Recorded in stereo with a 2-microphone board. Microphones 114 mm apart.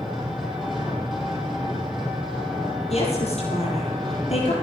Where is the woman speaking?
65° left (ahead or behind), 7 m.